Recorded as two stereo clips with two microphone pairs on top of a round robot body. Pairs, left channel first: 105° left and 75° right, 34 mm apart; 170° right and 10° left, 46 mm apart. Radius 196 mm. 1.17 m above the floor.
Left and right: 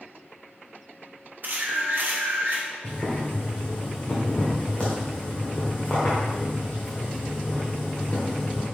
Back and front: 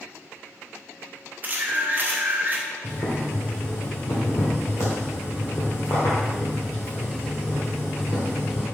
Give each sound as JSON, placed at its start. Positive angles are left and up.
{"t": 1.4, "sound": "a camera shutter", "azimuth_deg": -40, "distance_m": 1.0}
{"t": 2.8, "sound": "boiling", "azimuth_deg": 165, "distance_m": 1.3}